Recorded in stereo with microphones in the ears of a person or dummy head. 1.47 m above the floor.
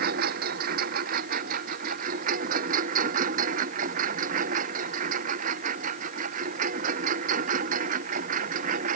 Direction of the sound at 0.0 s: 50° right (ahead or behind).